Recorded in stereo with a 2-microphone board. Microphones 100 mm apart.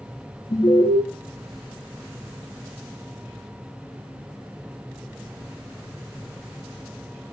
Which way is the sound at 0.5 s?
40° left (ahead or behind).